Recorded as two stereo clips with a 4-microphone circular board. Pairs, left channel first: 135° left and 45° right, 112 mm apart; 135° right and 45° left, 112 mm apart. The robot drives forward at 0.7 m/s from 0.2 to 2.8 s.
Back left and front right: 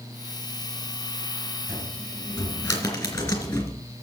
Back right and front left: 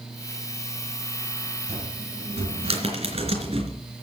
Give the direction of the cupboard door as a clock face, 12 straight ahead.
10 o'clock.